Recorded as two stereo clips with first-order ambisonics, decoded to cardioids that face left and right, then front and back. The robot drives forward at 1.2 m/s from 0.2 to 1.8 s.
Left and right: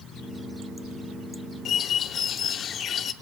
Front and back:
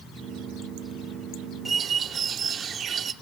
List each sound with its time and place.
1.6 s a bird: 110° left, 0.6 m; by 3.1 s 135° left, 0.6 m